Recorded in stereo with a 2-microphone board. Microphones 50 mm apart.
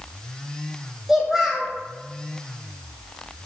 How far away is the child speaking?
About 0.7 m.